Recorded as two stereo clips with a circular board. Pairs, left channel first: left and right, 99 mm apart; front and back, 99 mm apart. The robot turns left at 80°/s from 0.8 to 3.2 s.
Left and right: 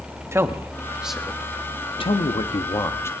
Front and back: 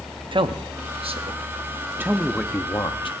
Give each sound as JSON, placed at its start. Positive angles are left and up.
{"t": 0.3, "sound": "a man speaking", "azimuth_deg": -150, "distance_m": 1.1}